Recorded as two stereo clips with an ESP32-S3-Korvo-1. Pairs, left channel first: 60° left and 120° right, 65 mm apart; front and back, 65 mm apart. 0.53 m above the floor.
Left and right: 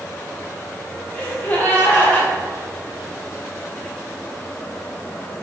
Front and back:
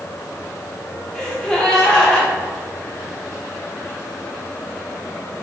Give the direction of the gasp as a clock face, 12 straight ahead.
10 o'clock.